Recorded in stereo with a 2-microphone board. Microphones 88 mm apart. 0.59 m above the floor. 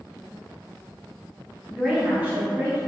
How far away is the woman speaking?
About 0.8 m.